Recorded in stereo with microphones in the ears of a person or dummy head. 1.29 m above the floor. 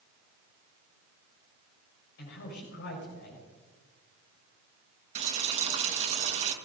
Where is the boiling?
35° right (ahead or behind), 1.6 m.